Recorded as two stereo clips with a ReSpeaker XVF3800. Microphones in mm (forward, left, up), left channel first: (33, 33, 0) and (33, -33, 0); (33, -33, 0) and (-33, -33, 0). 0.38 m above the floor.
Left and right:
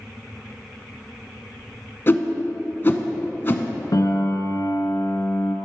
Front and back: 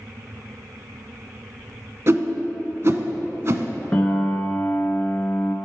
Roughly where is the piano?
Left.